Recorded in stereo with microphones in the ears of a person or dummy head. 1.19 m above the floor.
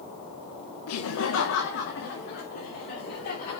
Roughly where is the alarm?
I don't hear an alarm.